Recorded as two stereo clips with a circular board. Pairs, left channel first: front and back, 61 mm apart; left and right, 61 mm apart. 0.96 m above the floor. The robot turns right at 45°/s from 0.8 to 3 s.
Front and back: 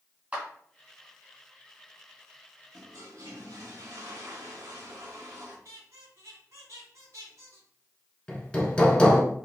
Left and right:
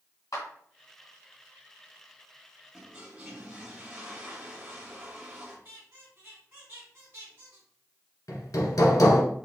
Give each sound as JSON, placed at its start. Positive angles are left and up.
{"t": 0.3, "sound": "a clap", "azimuth_deg": 115, "distance_m": 2.0}
{"t": 2.7, "sound": "a toilet flushing", "azimuth_deg": -165, "distance_m": 1.6}
{"t": 5.7, "sound": "a squeak", "azimuth_deg": -140, "distance_m": 2.5}
{"t": 8.3, "sound": "hammering", "azimuth_deg": 70, "distance_m": 1.3}